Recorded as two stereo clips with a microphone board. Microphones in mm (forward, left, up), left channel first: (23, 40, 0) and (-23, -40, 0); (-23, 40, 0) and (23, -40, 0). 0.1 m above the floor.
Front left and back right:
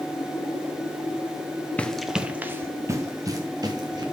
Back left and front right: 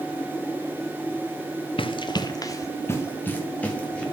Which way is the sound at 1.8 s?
135° left.